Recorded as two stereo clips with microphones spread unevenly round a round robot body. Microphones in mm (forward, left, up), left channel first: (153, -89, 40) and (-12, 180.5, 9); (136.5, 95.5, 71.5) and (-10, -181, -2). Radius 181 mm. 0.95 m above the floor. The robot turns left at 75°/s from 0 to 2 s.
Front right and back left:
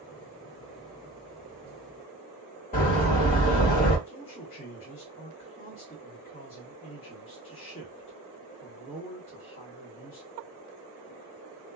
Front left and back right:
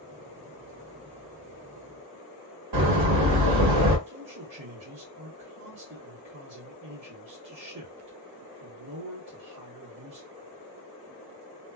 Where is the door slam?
125° right, 1.4 m.